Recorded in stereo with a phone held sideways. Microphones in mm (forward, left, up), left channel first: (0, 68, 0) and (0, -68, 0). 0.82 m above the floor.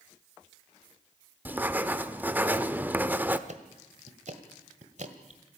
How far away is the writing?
About 0.9 m.